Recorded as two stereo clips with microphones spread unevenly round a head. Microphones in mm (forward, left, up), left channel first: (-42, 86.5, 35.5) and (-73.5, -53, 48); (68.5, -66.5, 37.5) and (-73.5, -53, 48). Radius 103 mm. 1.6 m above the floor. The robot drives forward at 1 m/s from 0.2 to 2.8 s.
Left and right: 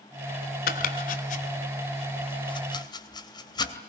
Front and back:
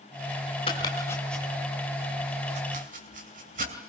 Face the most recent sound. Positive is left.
turn(degrees=135)